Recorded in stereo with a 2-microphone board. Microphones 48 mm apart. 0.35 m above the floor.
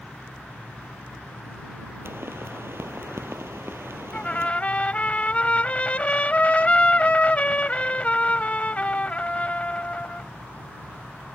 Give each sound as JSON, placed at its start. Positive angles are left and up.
{"t": 2.0, "sound": "a pop", "side_deg": -60}
{"t": 4.1, "sound": "a trumpet", "side_deg": 30}